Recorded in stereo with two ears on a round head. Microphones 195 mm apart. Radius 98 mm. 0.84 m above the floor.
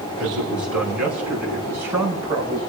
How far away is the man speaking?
About 6 m.